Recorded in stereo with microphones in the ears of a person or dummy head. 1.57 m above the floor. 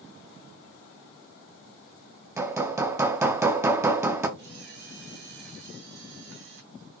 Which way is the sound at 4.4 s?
65° right (ahead or behind).